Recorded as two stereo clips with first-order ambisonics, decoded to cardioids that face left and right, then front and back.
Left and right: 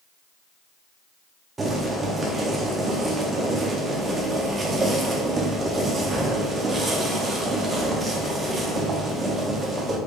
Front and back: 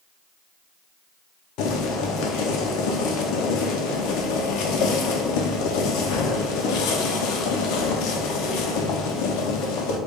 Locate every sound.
1.6 s boiling: 15° right, 0.5 m